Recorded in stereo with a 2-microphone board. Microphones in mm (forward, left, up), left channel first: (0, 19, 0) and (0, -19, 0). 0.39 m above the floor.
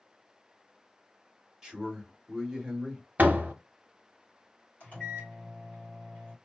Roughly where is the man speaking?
Centre.